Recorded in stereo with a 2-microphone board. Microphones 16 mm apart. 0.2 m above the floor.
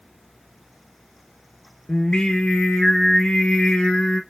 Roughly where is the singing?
Left.